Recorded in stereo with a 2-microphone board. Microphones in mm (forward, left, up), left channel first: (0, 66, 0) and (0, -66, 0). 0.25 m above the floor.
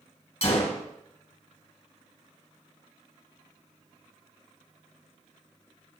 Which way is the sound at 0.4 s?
55° left (ahead or behind).